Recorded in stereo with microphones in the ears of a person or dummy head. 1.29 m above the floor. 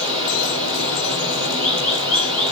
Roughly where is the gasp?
No gasp in this recording.